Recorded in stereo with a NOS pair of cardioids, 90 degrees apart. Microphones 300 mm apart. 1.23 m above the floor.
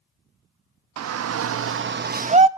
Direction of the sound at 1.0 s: 65° right.